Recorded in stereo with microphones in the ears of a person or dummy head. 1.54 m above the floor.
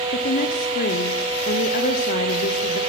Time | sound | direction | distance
0.1 | a woman speaking | 50° left (ahead or behind) | 0.9 m